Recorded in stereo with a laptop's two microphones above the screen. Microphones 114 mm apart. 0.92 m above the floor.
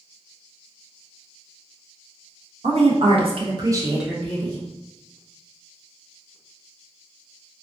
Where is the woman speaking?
65° right (ahead or behind), 1.0 m; by 4.7 s 35° left (ahead or behind), 0.7 m.